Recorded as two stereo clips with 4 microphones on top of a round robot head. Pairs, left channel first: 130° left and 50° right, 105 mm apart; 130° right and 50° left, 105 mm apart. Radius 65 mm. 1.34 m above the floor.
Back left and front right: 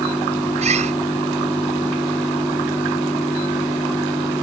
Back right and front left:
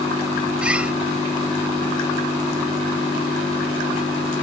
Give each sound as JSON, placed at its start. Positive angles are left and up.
{"t": 0.6, "sound": "a bird", "azimuth_deg": -30}